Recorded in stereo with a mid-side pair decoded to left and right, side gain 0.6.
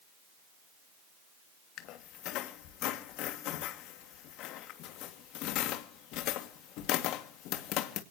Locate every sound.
1.8 s a squeak: 70° left, 2.5 m